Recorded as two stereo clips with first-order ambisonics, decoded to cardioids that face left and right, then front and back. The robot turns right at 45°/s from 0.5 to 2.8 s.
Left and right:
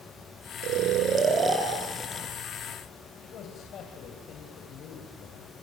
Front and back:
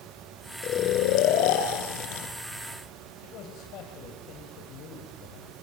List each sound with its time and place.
0.6 s snoring: 55° right, 2 m; by 2.3 s 20° left, 2 m
3.2 s a man speaking: 40° left, 2.5 m